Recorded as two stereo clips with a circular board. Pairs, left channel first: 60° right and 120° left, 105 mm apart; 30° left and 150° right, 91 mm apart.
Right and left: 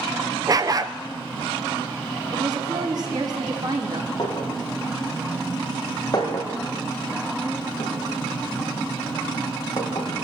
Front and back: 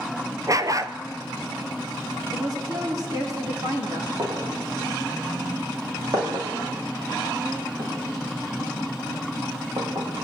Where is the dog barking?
170° left, 0.7 m.